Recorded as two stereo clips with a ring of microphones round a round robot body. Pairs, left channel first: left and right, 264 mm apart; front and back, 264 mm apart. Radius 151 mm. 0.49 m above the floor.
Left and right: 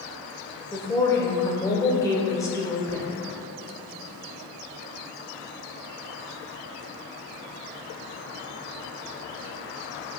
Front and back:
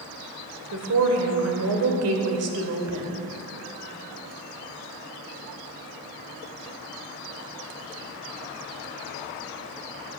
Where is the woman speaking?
170° left, 1.7 m.